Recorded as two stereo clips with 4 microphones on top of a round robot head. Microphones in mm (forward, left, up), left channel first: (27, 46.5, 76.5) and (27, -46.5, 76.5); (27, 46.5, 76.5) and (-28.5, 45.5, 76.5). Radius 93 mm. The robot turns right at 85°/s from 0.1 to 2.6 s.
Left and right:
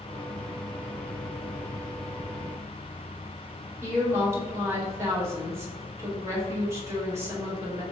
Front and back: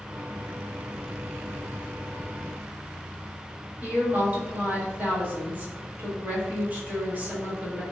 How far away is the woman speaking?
About 1.1 m.